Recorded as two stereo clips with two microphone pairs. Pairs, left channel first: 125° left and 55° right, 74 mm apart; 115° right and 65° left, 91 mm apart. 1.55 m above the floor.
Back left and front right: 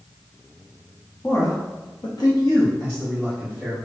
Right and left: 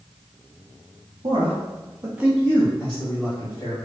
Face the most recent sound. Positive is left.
turn(degrees=-155)